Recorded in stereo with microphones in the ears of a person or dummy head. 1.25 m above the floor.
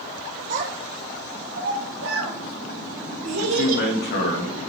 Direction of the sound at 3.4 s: 45° left (ahead or behind).